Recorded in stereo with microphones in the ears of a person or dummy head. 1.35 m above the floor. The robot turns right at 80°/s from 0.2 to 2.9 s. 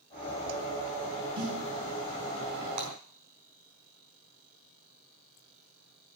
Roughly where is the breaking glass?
Right.